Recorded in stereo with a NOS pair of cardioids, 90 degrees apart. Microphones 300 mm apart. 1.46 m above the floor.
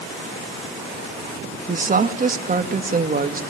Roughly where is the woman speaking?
Ahead right.